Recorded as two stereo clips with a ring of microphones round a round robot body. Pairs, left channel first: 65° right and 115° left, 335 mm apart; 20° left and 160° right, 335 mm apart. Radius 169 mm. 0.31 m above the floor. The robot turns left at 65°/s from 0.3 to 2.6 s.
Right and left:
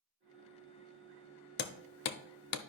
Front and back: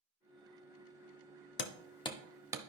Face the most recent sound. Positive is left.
turn(degrees=-85)